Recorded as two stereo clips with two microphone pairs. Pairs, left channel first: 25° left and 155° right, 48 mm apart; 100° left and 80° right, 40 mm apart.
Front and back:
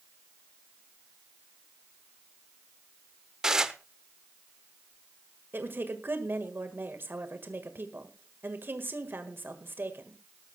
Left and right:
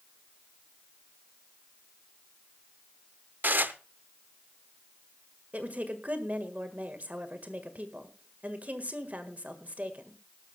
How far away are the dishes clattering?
About 0.8 m.